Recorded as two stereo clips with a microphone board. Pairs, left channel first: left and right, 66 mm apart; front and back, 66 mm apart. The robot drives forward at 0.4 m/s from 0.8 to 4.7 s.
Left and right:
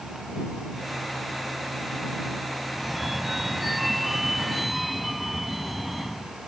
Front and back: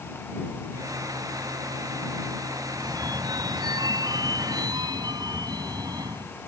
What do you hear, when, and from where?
2.7 s a phone ringing: straight behind